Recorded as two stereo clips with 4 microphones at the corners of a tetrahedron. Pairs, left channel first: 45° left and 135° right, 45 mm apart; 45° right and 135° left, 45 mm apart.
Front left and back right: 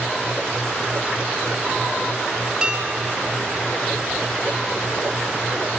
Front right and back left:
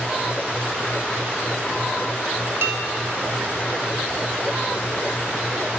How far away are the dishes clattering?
About 4.5 m.